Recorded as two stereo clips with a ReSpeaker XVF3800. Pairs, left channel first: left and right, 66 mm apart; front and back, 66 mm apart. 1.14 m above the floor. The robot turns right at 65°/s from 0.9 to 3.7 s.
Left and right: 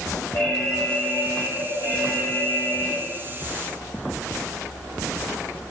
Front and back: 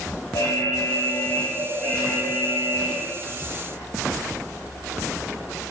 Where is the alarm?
20° left, 4.5 m; by 3.0 s 160° left, 4.5 m.